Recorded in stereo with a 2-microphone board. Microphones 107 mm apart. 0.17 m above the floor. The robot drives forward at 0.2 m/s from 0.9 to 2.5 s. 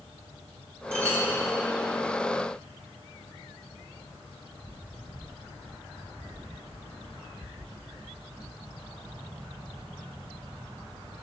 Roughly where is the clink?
Right.